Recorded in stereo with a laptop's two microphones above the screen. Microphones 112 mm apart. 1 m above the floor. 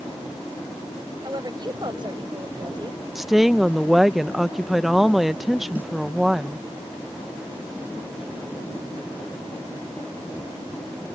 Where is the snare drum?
15° right (ahead or behind).